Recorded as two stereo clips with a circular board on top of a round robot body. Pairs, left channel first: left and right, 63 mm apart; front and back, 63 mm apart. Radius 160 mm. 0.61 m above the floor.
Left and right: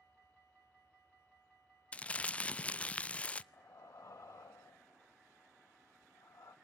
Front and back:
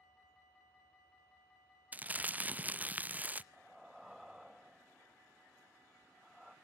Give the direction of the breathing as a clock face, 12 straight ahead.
9 o'clock.